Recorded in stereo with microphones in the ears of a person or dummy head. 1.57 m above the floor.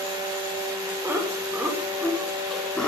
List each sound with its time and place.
1.0 s laughter: 10° right (ahead or behind), 6.5 m; by 2.9 s 10° left (ahead or behind), 5 m